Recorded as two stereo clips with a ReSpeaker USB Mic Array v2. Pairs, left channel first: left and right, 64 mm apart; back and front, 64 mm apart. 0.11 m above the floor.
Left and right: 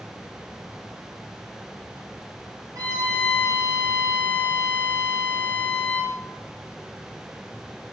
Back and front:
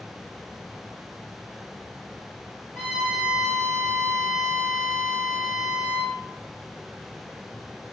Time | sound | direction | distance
2.8 | a violin | 110° right | 2 m